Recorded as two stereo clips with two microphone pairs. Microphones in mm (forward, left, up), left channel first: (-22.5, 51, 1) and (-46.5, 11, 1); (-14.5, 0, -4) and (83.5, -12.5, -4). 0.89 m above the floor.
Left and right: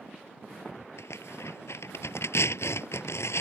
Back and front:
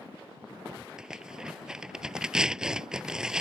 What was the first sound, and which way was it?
Tearing paper, 75° left.